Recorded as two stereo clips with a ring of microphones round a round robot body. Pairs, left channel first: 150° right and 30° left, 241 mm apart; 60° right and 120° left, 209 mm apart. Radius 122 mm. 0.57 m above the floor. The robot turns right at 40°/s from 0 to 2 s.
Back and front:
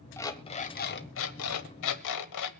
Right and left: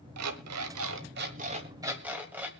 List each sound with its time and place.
0.2 s an alarm clock: 130° left, 1.2 m; by 2.5 s 155° right, 1.2 m